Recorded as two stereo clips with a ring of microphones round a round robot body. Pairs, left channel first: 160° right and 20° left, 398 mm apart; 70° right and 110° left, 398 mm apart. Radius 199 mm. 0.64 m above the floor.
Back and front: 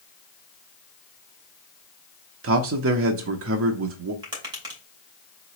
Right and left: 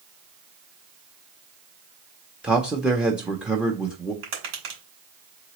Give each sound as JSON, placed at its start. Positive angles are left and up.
{"t": 2.4, "sound": "a man speaking", "azimuth_deg": 25, "distance_m": 0.6}
{"t": 4.2, "sound": "tapping", "azimuth_deg": 100, "distance_m": 2.5}